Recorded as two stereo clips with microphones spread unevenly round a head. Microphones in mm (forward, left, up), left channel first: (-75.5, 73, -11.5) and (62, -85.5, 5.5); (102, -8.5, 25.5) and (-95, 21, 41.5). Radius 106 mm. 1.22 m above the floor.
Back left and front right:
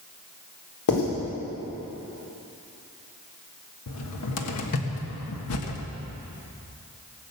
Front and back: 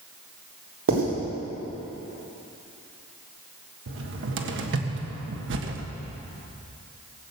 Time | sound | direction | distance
0.9 | writing | 150° left | 4 m
3.9 | a cupboard door | 140° left | 1.5 m